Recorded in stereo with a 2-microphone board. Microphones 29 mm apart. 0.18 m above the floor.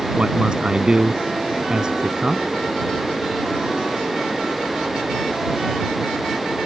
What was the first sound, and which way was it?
A man speaking, 30° right (ahead or behind).